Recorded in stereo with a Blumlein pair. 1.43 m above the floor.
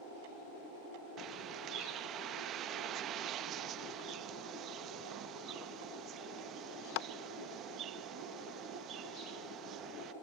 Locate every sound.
1.2 s a bird: 30° right